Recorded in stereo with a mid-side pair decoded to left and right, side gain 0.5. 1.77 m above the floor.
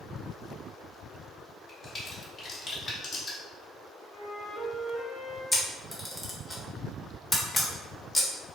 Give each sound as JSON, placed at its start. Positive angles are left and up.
{"t": 1.7, "sound": "a crack", "azimuth_deg": 40, "distance_m": 1.4}
{"t": 4.1, "sound": "a flute", "azimuth_deg": -5, "distance_m": 2.0}
{"t": 5.5, "sound": "a camera shutter", "azimuth_deg": 10, "distance_m": 1.3}